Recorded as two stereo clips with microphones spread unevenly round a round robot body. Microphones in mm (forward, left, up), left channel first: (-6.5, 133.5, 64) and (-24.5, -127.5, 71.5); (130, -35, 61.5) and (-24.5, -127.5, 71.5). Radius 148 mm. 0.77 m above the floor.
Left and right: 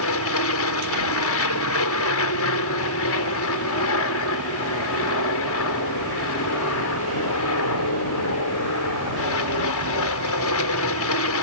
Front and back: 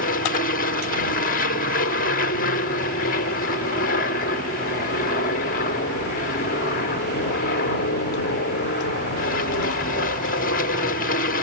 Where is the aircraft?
65° left.